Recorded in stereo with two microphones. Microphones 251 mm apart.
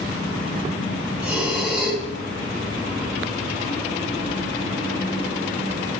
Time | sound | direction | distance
1.2 | breathing | 5° right (ahead or behind) | 1.9 m